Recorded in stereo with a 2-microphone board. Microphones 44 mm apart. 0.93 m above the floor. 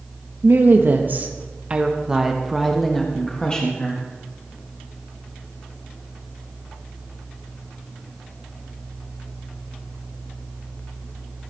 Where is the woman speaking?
55° right (ahead or behind), 1.4 m; by 4.0 s 30° left (ahead or behind), 1.7 m.